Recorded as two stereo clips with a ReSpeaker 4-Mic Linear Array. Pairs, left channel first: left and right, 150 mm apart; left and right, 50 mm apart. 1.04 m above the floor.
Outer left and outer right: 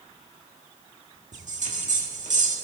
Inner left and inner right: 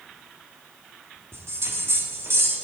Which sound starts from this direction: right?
A bell, at 1.3 s.